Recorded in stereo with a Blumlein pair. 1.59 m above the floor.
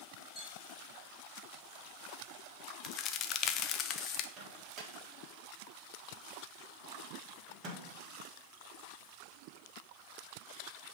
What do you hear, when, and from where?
0.3 s a clink: 15° left, 2.0 m
2.8 s a crack: 35° left, 0.5 m
4.4 s a microwave: 30° right, 1.4 m